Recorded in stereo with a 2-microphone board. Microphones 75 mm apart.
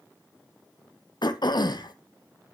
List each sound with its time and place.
1.2 s throat clearing: 65° left (ahead or behind), 0.6 m